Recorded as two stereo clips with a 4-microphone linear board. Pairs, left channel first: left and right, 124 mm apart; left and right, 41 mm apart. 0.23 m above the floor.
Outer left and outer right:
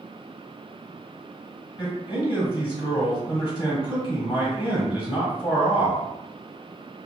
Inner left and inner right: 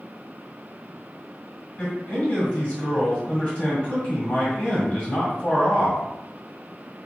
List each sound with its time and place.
1.8 s a man speaking: 30° left (ahead or behind), 1.5 m